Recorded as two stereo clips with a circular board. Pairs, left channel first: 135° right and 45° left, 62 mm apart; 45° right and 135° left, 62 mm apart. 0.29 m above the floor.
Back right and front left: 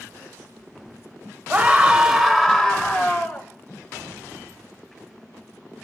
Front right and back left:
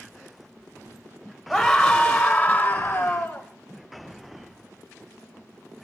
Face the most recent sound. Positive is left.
turn(degrees=-90)